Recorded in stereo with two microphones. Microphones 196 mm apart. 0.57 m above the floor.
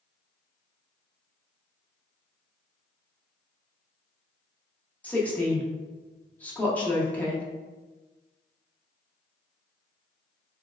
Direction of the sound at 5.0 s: 5° left (ahead or behind).